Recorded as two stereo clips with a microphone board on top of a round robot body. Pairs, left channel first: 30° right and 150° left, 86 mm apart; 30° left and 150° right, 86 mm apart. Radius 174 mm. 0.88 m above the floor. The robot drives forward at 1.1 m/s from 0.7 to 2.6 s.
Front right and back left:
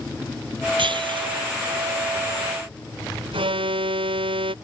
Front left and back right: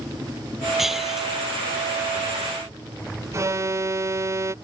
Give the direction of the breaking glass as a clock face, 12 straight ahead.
8 o'clock.